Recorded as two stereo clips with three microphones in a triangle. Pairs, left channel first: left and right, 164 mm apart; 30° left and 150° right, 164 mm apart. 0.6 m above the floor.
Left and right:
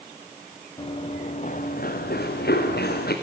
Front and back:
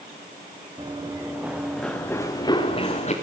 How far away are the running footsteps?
About 3 m.